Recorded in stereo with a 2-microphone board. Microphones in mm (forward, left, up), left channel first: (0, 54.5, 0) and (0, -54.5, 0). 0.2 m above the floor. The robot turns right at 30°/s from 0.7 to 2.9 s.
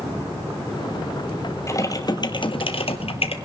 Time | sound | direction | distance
1.7 | typing on a keyboard | 30° left | 1.2 m